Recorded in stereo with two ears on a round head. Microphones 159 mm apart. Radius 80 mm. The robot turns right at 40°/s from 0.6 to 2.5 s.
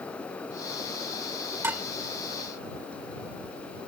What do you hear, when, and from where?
1.6 s dishes clattering: 15° right (ahead or behind); by 1.9 s 5° right (ahead or behind)